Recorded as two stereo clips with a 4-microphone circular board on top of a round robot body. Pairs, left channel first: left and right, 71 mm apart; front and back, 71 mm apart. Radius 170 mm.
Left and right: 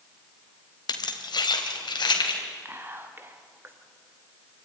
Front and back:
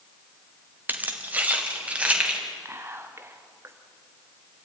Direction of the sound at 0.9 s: 115° left.